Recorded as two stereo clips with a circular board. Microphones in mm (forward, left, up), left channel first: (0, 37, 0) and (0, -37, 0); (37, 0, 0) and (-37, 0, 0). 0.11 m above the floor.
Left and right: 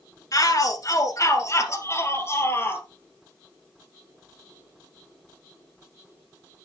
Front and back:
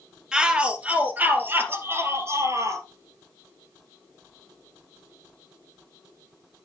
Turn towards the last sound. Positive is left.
turn(degrees=145)